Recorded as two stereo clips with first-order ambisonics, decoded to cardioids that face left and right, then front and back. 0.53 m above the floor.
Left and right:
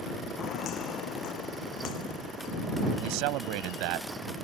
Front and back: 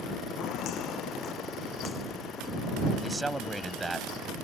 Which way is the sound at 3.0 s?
100° right.